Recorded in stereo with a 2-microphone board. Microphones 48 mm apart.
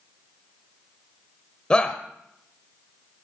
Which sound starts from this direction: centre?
A shout, at 1.7 s.